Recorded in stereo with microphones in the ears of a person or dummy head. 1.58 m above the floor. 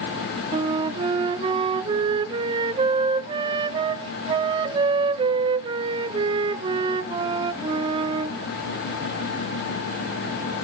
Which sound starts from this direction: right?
A flute, at 0.5 s.